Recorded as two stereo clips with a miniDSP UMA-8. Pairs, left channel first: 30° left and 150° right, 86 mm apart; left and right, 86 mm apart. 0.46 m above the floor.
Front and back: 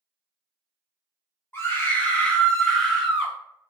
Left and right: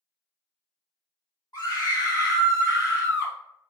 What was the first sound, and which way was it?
A scream, 80° left.